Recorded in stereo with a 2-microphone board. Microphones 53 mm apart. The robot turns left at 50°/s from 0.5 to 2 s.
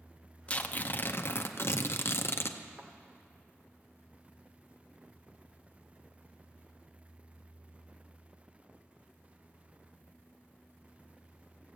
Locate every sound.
0.5 s tearing paper: 150° left, 0.7 m; by 2.6 s 75° left, 0.7 m
2.8 s a thud: 45° right (ahead or behind), 1.4 m